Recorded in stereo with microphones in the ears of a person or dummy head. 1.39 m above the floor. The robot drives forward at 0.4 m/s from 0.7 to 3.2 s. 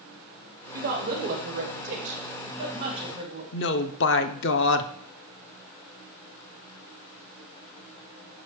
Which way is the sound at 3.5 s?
60° left (ahead or behind).